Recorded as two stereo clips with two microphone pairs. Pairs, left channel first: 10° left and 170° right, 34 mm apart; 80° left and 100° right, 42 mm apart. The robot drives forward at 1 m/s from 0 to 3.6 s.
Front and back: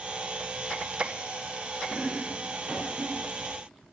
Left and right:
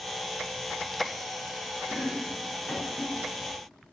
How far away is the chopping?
About 4 m.